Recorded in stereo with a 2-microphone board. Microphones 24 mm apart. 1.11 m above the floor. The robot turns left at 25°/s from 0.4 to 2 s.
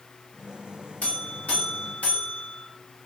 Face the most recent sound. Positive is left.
turn(degrees=70)  # may be behind; listen again after turning